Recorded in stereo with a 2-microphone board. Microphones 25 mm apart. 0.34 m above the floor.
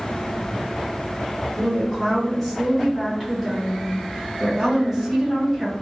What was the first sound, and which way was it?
A woman speaking, 10° left (ahead or behind).